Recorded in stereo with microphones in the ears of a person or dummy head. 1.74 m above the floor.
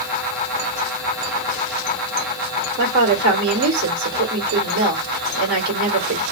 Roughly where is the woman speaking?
Right.